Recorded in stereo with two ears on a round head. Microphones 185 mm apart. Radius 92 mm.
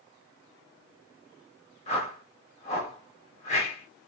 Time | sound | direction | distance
1.9 | a whoosh | 35° left (ahead or behind) | 1.4 m